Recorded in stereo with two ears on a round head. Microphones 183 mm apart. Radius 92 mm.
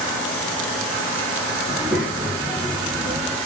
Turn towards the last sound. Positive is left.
turn(degrees=-5)  # may be behind; listen again after turning